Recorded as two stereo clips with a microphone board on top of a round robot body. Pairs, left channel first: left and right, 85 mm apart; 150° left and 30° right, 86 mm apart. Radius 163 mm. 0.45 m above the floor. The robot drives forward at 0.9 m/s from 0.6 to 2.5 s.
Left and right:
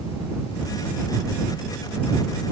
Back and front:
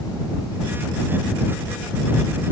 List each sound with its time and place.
Only background noise.